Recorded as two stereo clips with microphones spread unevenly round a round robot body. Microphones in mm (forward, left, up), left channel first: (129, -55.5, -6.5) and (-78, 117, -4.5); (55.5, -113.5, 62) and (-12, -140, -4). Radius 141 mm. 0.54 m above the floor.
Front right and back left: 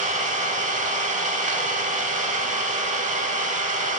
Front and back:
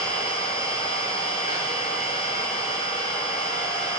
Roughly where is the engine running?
Left.